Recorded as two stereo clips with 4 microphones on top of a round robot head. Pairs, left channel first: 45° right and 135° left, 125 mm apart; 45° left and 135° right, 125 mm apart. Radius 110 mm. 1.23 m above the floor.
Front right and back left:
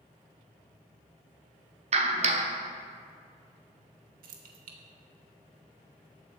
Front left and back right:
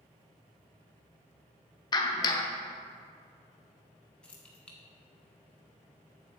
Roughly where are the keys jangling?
Behind left.